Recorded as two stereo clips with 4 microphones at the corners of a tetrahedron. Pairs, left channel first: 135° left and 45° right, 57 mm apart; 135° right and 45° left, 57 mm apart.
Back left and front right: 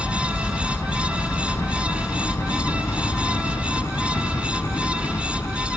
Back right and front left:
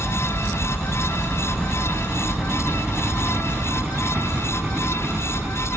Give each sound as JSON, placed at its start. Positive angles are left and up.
{"t": 0.0, "sound": "a helicopter", "azimuth_deg": 150}